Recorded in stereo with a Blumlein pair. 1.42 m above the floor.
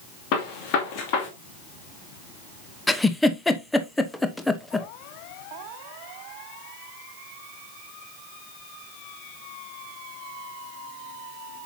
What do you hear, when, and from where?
0.3 s a gunshot: 45° left, 2.5 m
2.9 s a giggle: 5° left, 0.9 m